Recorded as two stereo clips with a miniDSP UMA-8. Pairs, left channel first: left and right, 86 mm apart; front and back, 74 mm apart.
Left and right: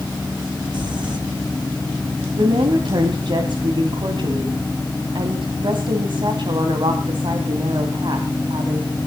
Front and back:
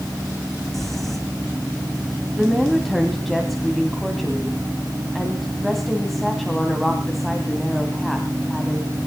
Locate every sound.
0.7 s crumpling: 85° right, 2.5 m
2.3 s a woman speaking: 90° right, 2 m